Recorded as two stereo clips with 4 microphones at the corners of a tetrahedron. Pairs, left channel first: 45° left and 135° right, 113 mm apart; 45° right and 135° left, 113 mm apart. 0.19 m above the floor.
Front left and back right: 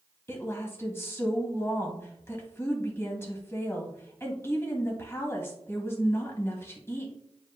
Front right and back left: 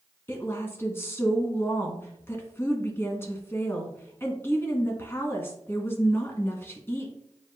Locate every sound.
0.3 s a woman speaking: straight ahead, 1.5 m